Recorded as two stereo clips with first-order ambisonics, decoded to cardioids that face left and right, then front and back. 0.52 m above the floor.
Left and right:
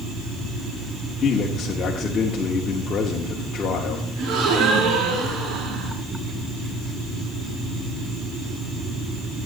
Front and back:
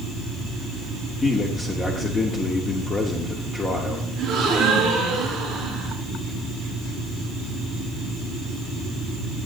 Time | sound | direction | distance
1.2 | a man speaking | 60° left | 1.0 m
4.2 | a gasp | 115° right | 6 m